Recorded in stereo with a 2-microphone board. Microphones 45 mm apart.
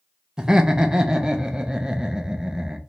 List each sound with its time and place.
0.4 s laughter: 15° right (ahead or behind), 0.5 m